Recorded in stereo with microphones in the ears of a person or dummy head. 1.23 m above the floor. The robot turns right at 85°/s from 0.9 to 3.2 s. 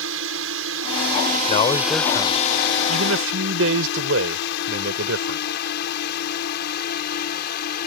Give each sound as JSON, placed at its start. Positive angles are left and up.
{"t": 0.0, "sound": "a drone", "side_deg": -75}
{"t": 1.5, "sound": "a man speaking", "azimuth_deg": 135}